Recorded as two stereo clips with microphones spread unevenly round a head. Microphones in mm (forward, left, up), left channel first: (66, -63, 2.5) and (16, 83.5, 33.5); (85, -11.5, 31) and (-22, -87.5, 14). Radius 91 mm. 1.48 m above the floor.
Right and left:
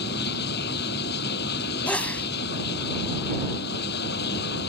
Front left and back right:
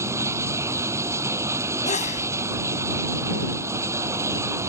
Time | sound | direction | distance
0.0 | running water | 75° right | ?
1.9 | a sneeze | 10° left | ?